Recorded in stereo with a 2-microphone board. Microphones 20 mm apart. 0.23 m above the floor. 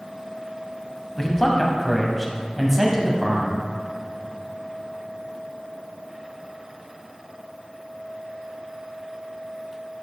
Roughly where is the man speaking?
Left.